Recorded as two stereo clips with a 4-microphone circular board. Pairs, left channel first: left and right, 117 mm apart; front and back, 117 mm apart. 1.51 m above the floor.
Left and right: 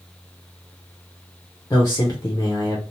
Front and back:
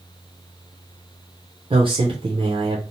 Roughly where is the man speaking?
Behind left.